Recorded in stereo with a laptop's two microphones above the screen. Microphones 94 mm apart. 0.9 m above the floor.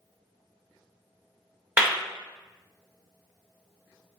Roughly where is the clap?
Centre.